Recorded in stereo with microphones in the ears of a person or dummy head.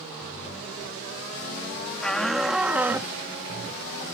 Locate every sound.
2.0 s a shout: 5° left (ahead or behind); by 3.1 s 15° right (ahead or behind)